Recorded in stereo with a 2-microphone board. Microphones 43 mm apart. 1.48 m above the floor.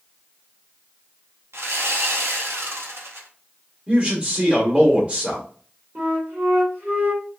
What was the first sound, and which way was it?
Sawing, 70° right (ahead or behind).